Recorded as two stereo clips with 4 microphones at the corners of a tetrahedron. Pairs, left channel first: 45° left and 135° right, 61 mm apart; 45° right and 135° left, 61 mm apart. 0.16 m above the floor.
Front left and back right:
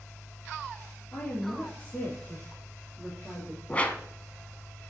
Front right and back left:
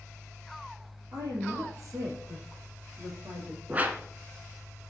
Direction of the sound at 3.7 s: 95° left.